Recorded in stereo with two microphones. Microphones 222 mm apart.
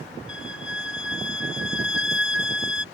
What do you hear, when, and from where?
0.3 s a violin: 65° left (ahead or behind)